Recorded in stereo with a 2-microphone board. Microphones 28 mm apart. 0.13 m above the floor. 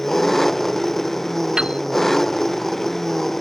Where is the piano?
30° right (ahead or behind).